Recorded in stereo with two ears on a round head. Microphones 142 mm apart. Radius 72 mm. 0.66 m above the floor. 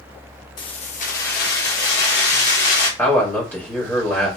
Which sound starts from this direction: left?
Keys jangling, at 0.6 s.